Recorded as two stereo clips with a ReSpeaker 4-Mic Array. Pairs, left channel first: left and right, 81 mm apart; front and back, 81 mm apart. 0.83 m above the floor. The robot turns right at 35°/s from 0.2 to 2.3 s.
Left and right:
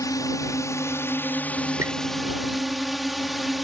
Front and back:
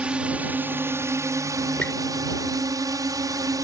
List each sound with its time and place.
0.0 s a drone: 110° left; by 3.6 s straight behind
1.8 s a squeak: 65° right; by 1.9 s 60° right